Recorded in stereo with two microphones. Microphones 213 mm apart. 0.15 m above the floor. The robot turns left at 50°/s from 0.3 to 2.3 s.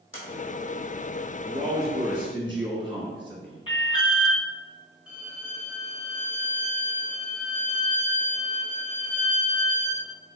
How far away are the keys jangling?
No keys jangling in this recording.